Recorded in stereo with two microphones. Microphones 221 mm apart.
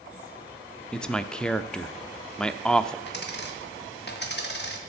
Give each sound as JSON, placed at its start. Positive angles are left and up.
{"t": 0.9, "sound": "a man speaking", "side_deg": 5, "distance_m": 0.6}
{"t": 3.1, "sound": "a dropped coin", "side_deg": 50, "distance_m": 1.6}